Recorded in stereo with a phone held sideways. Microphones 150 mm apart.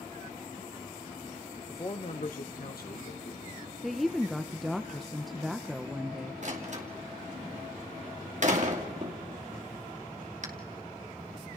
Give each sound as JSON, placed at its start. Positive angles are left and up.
{"t": 1.7, "sound": "a man speaking", "side_deg": 15, "distance_m": 0.9}
{"t": 3.8, "sound": "a woman speaking", "side_deg": 0, "distance_m": 0.8}
{"t": 6.4, "sound": "a door slam", "side_deg": -55, "distance_m": 2.5}